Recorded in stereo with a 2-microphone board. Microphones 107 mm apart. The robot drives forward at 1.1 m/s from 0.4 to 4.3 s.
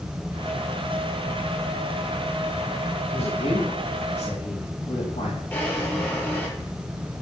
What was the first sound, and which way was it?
A man speaking, 80° left.